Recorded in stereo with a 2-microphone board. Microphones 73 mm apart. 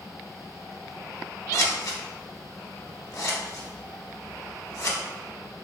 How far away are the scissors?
About 0.7 m.